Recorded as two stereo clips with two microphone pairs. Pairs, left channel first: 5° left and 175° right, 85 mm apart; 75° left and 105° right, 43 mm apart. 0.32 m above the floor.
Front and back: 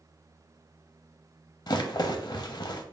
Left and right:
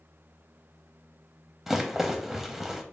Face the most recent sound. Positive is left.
turn(degrees=-20)